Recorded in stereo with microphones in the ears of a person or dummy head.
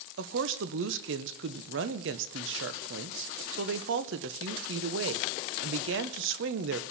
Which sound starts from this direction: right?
A woman speaking, at 0.2 s.